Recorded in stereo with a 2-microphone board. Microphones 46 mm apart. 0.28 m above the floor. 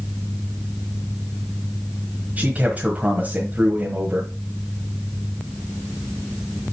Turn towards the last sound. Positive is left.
turn(degrees=-35)  # may be behind; listen again after turning